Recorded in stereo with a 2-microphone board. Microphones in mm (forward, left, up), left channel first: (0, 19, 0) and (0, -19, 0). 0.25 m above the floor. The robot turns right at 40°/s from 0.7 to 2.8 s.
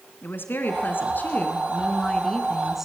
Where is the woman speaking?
105° left, 3 m; by 2.9 s 170° right, 3 m.